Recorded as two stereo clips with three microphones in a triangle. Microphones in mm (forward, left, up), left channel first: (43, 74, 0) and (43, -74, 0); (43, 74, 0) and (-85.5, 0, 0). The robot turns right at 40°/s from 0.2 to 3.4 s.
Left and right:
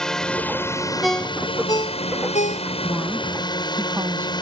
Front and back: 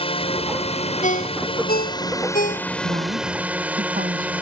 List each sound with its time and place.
0.0 s a drone: 5° left; by 4.4 s 135° left
1.0 s a ringtone: straight ahead; by 2.7 s 65° left
2.8 s a woman speaking: straight behind; by 4.3 s 160° right